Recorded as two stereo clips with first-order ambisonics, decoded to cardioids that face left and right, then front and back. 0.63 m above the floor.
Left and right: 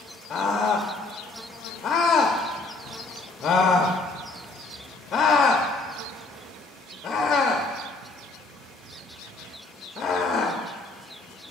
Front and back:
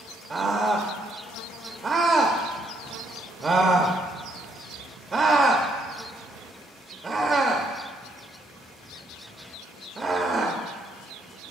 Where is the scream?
120° left, 0.6 m.